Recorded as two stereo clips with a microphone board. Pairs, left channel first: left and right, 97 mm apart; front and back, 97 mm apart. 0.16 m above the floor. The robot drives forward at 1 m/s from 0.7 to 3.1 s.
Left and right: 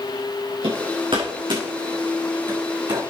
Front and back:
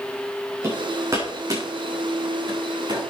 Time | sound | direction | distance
0.6 | hammering | 115° right | 7.5 m